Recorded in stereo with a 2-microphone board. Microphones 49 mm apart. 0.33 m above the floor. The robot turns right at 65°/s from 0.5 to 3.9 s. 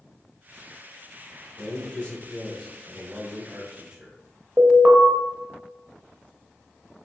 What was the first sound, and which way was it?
A man speaking, 25° left (ahead or behind).